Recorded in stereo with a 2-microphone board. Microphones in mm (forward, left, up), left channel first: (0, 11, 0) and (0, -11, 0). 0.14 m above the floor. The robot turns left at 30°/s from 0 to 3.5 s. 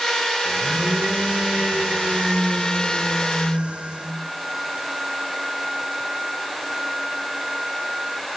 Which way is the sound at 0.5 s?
45° right.